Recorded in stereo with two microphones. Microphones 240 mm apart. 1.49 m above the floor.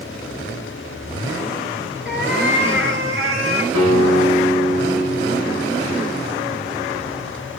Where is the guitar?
75° right (ahead or behind), 9.5 m.